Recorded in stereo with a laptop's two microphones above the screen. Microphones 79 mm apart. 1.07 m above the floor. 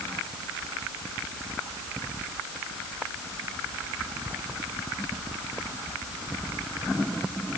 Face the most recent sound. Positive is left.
No sound to turn to.